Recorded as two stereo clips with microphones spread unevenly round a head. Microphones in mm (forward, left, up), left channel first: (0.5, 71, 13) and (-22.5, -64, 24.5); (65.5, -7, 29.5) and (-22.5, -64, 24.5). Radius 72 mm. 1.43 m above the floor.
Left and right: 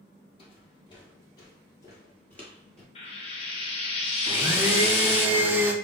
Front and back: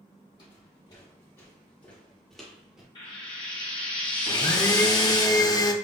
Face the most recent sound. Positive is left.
turn(degrees=-20)